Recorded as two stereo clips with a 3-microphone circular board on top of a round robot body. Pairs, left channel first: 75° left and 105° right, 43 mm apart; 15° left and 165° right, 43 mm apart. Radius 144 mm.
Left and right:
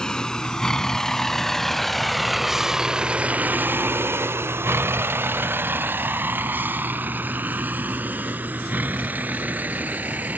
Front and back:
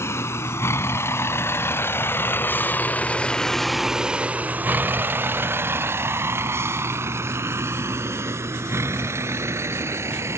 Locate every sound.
0.0 s a vehicle: 5° left; by 10.4 s 155° right